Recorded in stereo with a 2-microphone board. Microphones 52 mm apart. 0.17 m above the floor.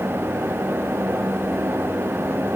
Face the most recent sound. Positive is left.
No sound to turn to.